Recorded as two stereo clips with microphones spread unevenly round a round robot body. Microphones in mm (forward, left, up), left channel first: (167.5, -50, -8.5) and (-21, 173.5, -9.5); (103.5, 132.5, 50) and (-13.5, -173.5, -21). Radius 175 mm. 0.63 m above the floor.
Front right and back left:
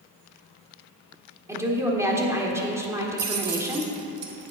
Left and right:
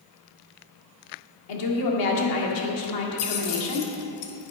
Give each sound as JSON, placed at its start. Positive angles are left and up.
{"t": 1.5, "sound": "a woman speaking", "azimuth_deg": 50, "distance_m": 1.7}
{"t": 3.2, "sound": "keys jangling", "azimuth_deg": 90, "distance_m": 1.4}